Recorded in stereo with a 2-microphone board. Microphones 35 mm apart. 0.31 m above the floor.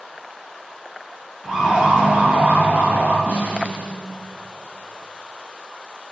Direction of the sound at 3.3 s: 85° right.